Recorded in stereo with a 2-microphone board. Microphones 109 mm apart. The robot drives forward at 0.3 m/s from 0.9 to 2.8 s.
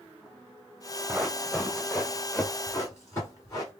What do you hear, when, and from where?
1.1 s running footsteps: 10° right (ahead or behind), 0.8 m; by 3.7 s 35° left (ahead or behind), 2.5 m